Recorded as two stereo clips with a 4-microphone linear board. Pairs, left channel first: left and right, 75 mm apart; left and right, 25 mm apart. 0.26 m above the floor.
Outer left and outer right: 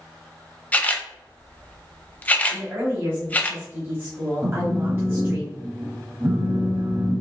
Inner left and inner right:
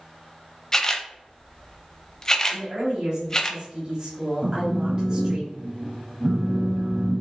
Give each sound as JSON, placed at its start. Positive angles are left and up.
{"t": 0.7, "sound": "a camera shutter", "side_deg": 20, "distance_m": 0.6}
{"t": 2.5, "sound": "a woman speaking", "side_deg": -35, "distance_m": 1.2}
{"t": 4.4, "sound": "a phone buzzing", "side_deg": -35, "distance_m": 0.6}